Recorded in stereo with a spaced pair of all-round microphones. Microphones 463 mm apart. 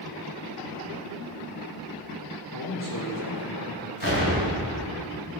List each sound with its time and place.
2.5 s a man speaking: 40° left (ahead or behind), 1.0 m
4.0 s an explosion: 45° right (ahead or behind), 1.9 m